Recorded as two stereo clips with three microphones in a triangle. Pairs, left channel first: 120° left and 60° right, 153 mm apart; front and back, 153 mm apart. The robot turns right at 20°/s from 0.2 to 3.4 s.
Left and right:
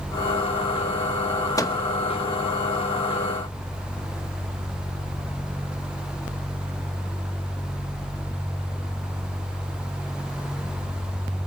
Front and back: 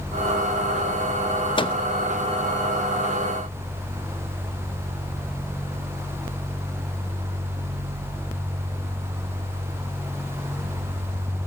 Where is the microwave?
55° left, 0.9 m; by 1.8 s 60° left, 0.9 m.